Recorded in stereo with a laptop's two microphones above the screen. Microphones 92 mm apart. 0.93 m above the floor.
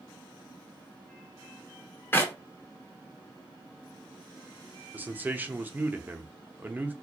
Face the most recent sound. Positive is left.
turn(degrees=-20)  # may be behind; listen again after turning